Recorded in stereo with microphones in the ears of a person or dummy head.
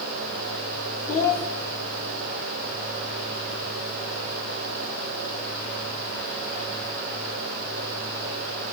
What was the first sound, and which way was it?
A child speaking, 10° left (ahead or behind).